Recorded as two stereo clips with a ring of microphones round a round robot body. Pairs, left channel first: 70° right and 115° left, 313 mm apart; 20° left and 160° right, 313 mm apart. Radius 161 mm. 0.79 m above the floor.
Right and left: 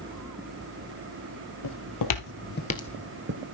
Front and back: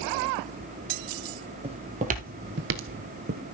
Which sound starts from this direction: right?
Footsteps, at 1.6 s.